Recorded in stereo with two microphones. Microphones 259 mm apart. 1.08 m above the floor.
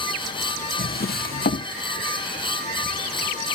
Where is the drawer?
35° left (ahead or behind), 0.8 m.